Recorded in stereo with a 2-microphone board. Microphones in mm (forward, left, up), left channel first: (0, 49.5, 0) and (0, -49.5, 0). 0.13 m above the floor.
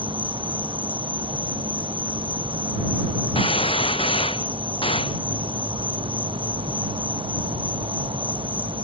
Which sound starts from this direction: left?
A gunshot, at 3.4 s.